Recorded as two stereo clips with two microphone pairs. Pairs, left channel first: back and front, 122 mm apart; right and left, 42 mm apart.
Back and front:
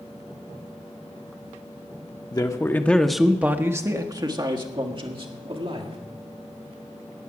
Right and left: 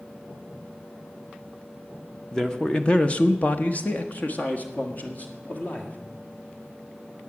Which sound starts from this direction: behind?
A man speaking, at 2.3 s.